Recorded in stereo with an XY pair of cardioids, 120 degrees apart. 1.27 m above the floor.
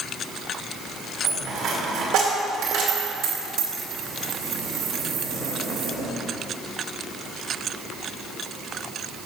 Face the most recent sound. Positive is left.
turn(degrees=-70)